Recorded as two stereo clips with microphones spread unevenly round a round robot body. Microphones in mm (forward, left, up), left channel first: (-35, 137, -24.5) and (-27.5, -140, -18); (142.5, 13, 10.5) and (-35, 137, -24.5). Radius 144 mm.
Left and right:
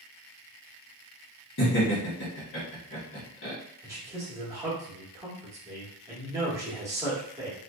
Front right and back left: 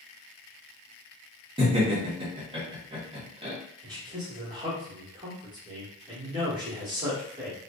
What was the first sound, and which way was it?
Laughter, 105° left.